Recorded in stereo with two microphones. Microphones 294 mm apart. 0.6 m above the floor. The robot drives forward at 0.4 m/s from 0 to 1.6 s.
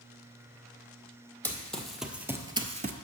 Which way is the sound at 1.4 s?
5° left (ahead or behind).